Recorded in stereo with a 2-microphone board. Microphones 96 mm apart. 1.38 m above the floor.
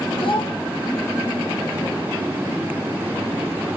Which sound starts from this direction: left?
A child speaking, at 0.2 s.